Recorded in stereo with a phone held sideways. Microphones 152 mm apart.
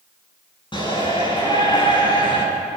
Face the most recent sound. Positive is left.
turn(degrees=30)  # may be behind; listen again after turning